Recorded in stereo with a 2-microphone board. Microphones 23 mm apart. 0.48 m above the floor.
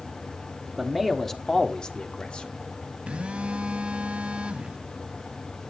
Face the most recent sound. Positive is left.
turn(degrees=-55)  # may be behind; listen again after turning